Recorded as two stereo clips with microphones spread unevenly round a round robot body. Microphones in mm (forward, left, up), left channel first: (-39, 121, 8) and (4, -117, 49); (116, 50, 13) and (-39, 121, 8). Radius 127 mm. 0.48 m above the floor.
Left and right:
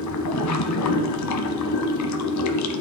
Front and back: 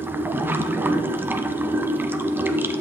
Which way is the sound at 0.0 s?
75° left.